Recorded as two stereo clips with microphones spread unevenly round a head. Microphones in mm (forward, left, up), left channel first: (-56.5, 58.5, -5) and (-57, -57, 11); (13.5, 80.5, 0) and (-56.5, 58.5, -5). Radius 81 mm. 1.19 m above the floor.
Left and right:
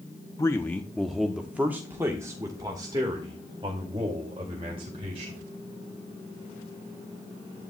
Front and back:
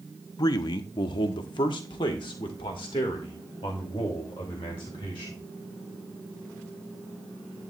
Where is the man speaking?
30° left, 0.8 m; by 5.4 s 30° right, 3 m.